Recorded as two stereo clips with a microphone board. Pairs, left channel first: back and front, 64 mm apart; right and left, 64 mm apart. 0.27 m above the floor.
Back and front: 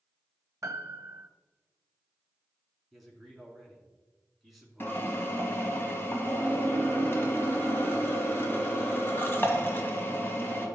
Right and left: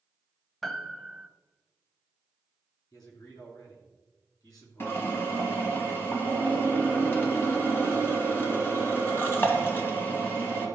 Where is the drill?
130° right, 1.8 m.